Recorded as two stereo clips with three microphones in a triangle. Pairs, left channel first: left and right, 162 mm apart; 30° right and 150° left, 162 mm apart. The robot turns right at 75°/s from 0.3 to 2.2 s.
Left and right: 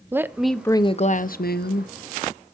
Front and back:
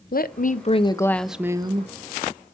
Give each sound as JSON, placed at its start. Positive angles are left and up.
{"t": 0.1, "sound": "a woman speaking", "azimuth_deg": -10, "distance_m": 0.7}